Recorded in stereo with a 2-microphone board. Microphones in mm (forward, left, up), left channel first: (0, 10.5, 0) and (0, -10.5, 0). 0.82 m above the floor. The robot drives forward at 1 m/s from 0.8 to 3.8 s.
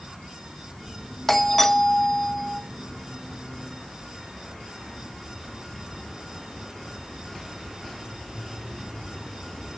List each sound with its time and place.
1.3 s a doorbell: 10° left (ahead or behind), 1.0 m